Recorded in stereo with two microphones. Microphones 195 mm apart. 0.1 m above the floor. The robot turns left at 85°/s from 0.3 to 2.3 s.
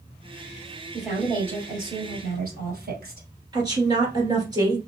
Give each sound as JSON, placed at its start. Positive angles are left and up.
{"t": 0.9, "sound": "a woman speaking", "azimuth_deg": 10, "distance_m": 2.5}
{"t": 3.5, "sound": "a woman speaking", "side_deg": -20, "distance_m": 1.9}